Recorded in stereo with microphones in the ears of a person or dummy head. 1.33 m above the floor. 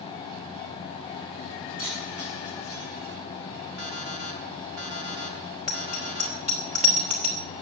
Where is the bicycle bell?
40° right (ahead or behind), 3.5 m.